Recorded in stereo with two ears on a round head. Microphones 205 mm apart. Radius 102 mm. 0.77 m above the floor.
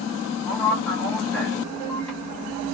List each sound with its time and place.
0.5 s a man speaking: 5° left (ahead or behind), 1.5 m